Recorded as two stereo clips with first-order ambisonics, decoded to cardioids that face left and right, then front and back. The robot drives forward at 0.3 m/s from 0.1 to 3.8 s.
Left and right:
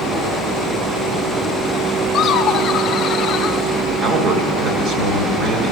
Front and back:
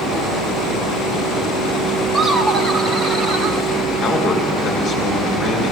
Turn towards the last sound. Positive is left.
turn(degrees=-70)